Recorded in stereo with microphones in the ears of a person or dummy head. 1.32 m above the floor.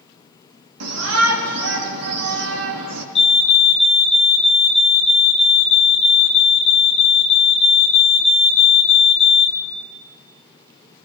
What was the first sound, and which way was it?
A shout, 85° right.